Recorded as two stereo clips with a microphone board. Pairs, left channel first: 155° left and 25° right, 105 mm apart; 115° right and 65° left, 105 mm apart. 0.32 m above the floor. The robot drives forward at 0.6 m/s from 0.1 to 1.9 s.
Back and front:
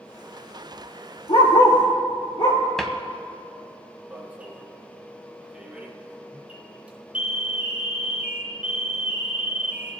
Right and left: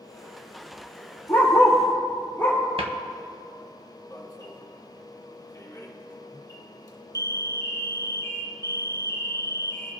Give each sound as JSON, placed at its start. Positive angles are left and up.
{"t": 1.3, "sound": "a dog barking", "azimuth_deg": 175, "distance_m": 3.0}
{"t": 2.8, "sound": "a cupboard door", "azimuth_deg": 70, "distance_m": 0.8}
{"t": 4.1, "sound": "an alarm", "azimuth_deg": -90, "distance_m": 1.6}